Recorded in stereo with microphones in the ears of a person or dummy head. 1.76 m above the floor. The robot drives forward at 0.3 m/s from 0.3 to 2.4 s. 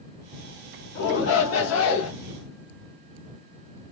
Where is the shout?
60° left (ahead or behind), 0.8 m; by 2.1 s 80° left, 0.7 m.